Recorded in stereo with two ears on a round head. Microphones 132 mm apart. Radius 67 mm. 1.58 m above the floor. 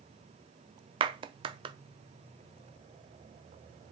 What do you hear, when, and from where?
1.0 s a clap: 35° right (ahead or behind), 0.6 m